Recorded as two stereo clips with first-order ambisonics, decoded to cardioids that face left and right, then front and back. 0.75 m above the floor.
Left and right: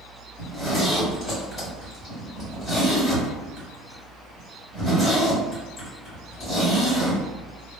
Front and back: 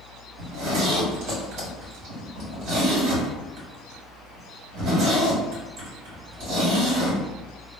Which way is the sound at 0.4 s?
150° left.